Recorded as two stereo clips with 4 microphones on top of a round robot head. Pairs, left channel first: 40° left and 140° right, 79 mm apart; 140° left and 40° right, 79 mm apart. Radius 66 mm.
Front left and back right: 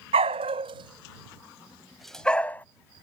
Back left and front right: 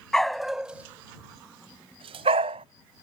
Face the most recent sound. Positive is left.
turn(degrees=-30)